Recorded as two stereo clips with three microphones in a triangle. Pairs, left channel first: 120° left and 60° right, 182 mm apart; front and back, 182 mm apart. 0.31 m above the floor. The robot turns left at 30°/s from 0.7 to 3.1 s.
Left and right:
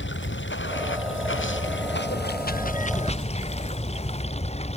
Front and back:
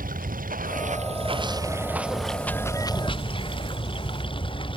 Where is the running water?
135° left; by 4.8 s 65° left.